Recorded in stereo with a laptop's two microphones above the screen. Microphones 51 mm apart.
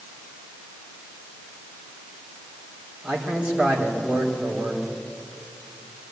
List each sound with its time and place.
3.0 s a man speaking: 20° right (ahead or behind), 3 m